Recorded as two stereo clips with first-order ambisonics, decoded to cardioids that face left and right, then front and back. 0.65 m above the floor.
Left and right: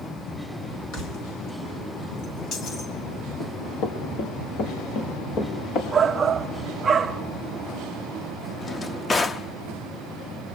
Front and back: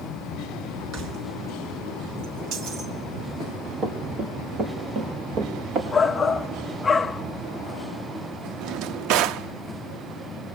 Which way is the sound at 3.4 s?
110° left.